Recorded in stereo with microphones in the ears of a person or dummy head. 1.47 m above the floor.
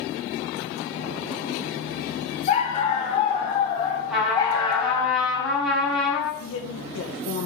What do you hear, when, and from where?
2.5 s a dog barking: 35° left (ahead or behind), 3 m; by 5.1 s 20° left (ahead or behind), 2 m
4.1 s a trumpet: centre (ahead or behind), 4 m
6.4 s a woman speaking: 75° left (ahead or behind), 1.5 m